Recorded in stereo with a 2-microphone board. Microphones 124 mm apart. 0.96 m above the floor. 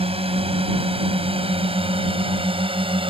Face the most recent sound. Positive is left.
turn(degrees=-45)  # may be behind; listen again after turning